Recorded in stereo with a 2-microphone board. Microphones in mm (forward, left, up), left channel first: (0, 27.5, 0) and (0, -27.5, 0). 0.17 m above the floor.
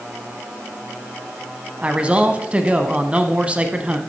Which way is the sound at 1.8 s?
20° right (ahead or behind).